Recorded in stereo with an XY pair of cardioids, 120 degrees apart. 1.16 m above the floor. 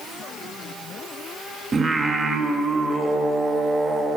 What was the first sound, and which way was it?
Singing, 35° right.